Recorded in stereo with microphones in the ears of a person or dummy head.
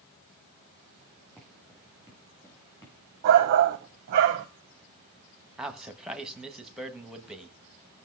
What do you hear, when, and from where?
1.4 s footsteps: 5° left (ahead or behind), 7.5 m; by 3.0 s 20° left (ahead or behind), 8 m
3.2 s a shout: 50° right (ahead or behind), 0.7 m
5.6 s a man speaking: 5° right (ahead or behind), 1.4 m